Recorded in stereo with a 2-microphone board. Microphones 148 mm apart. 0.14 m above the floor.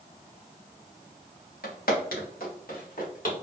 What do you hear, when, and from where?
1.6 s footsteps: 85° left, 1.7 m; by 3.3 s 65° left (ahead or behind), 2.5 m